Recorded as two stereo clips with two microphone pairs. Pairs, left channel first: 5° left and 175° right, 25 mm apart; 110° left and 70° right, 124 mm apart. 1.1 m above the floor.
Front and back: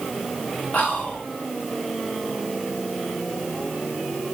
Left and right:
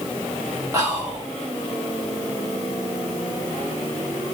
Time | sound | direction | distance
0.7 | whispering | 10° right | 1.6 m